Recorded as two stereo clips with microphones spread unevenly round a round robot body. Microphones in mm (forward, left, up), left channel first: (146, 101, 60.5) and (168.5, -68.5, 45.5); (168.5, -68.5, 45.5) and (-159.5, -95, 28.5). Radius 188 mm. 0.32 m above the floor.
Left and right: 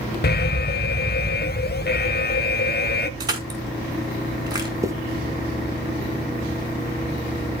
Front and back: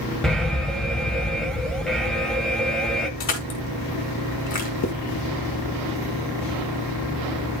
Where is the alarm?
95° left, 0.9 m.